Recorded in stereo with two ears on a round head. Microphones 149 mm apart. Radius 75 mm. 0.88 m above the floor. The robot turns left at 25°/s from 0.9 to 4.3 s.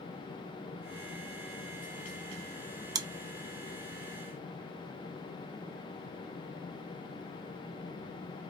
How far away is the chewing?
About 0.7 m.